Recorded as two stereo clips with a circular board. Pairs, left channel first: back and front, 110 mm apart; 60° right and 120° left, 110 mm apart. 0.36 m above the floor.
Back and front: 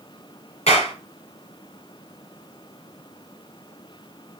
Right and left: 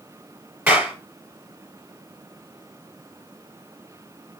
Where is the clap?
160° right, 4.5 m.